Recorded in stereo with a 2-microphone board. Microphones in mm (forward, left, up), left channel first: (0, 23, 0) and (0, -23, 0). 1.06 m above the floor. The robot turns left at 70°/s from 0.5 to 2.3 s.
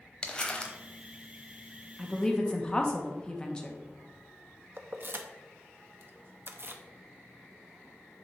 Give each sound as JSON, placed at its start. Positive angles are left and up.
{"t": 0.2, "sound": "crumpling", "side_deg": 20, "distance_m": 0.9}
{"t": 2.0, "sound": "a woman speaking", "side_deg": 0, "distance_m": 1.0}
{"t": 4.8, "sound": "keys jangling", "side_deg": -50, "distance_m": 0.6}